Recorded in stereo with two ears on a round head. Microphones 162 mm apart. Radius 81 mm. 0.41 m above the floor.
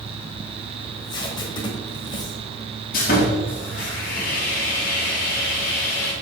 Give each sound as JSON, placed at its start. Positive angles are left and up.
{"t": 0.8, "sound": "tape being pulled", "side_deg": 25, "distance_m": 1.4}
{"t": 2.9, "sound": "sawing", "side_deg": 50, "distance_m": 2.5}